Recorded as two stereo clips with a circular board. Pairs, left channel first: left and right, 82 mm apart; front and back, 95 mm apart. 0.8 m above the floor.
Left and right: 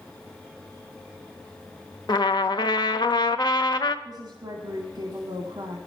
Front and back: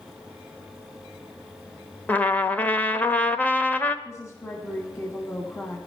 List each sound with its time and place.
2.1 s a trumpet: 70° left, 0.8 m
4.0 s a woman speaking: 60° right, 2 m